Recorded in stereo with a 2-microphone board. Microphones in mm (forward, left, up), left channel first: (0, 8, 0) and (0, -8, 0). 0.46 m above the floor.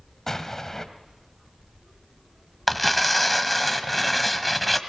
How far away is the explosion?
About 1.8 m.